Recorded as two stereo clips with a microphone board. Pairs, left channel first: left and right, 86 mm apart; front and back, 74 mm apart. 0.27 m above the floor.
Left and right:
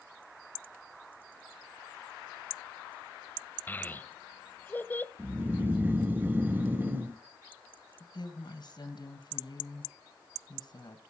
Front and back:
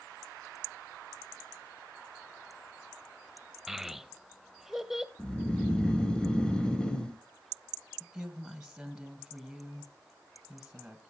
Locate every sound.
3.7 s a child speaking: 105° left, 0.6 m
5.2 s snoring: 65° right, 0.9 m
8.0 s a woman speaking: 95° left, 2 m